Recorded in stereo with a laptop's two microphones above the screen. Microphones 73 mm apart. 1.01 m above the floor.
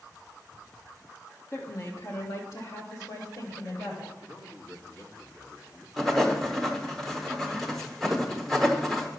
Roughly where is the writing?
Centre.